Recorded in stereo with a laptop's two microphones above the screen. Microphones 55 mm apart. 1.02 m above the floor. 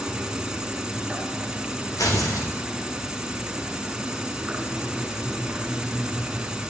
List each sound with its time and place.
0.0 s an insect: 10° right (ahead or behind), 3.5 m
2.0 s tearing paper: 75° left (ahead or behind), 4 m